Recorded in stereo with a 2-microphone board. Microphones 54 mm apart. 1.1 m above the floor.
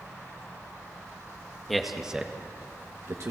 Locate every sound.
1.7 s a man speaking: centre (ahead or behind), 1.8 m; by 3.3 s 65° right (ahead or behind), 1.6 m